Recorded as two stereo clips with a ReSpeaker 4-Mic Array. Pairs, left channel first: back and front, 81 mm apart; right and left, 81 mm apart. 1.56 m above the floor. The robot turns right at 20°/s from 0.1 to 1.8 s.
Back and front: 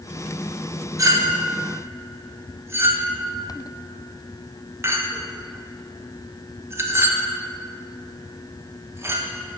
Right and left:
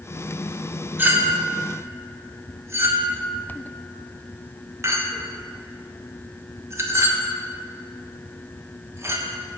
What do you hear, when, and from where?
1.0 s a clink: 30° left, 0.9 m; by 9.3 s 45° left, 0.9 m